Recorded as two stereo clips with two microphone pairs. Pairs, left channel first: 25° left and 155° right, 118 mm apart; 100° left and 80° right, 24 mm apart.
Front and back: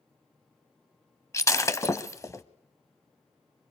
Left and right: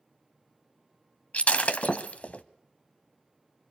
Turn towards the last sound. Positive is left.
turn(degrees=85)